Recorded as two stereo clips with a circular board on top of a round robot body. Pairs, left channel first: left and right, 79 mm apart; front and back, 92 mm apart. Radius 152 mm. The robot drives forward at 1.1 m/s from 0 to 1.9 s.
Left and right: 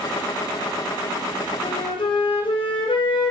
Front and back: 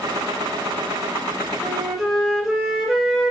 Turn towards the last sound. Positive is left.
turn(degrees=95)